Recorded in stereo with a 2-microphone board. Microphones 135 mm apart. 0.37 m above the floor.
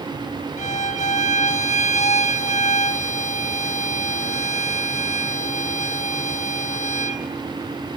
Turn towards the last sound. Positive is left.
turn(degrees=60)  # may be behind; listen again after turning